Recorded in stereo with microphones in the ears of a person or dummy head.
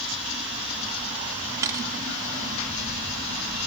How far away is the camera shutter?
About 1.3 m.